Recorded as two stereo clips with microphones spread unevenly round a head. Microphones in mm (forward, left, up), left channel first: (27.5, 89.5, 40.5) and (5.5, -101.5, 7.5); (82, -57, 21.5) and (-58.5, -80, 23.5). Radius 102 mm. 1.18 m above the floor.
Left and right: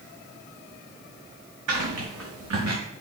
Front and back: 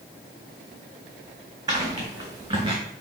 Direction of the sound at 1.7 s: 110° right.